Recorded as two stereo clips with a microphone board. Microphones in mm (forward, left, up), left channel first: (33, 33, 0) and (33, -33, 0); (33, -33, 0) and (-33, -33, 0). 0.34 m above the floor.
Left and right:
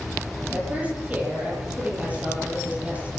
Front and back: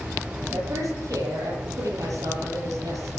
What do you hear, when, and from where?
0.5 s a woman speaking: 155° right, 8.5 m